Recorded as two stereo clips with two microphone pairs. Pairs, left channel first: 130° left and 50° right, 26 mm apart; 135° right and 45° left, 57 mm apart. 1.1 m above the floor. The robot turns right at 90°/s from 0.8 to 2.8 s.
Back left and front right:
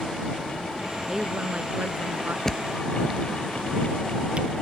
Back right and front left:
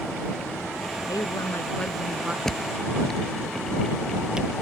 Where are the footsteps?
150° left; by 4.5 s 25° right.